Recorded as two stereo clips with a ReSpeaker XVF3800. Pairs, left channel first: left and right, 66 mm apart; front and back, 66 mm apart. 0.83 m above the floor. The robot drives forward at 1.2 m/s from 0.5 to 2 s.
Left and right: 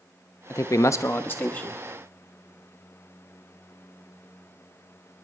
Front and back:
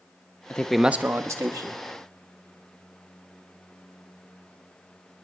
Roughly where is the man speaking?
Ahead left.